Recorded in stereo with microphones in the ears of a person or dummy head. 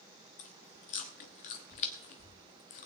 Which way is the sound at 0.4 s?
40° left (ahead or behind).